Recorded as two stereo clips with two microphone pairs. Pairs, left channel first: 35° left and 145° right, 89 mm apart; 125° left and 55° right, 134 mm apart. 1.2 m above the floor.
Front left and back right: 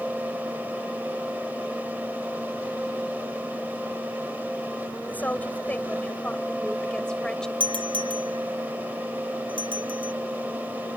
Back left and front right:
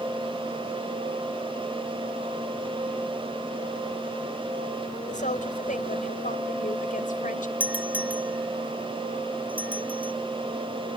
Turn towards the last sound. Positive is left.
turn(degrees=-135)